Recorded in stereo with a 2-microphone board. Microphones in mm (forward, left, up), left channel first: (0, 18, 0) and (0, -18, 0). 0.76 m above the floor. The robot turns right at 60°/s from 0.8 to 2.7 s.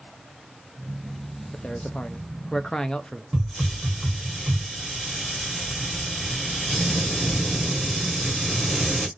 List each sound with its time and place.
1.5 s a man speaking: 65° left, 0.6 m; by 3.2 s 135° left, 0.6 m
3.3 s a hiss: 5° left (ahead or behind), 1.5 m